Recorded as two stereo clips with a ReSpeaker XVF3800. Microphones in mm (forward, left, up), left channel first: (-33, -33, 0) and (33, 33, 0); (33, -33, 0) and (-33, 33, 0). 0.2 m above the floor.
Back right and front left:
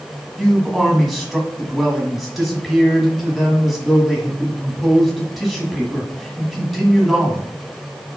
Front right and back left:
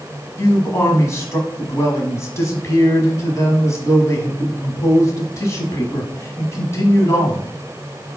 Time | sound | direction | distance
0.4 | a man speaking | 45° right | 1.3 m